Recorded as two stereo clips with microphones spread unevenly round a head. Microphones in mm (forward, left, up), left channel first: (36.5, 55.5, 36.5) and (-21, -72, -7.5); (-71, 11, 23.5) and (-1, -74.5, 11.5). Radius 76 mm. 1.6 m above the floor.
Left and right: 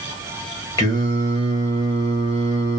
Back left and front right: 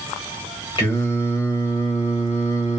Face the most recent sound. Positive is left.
turn(degrees=100)